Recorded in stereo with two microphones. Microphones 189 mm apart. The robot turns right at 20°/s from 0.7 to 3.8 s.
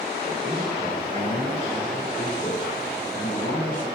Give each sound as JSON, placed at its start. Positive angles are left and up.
{"t": 0.2, "sound": "a man speaking", "azimuth_deg": 30, "distance_m": 1.9}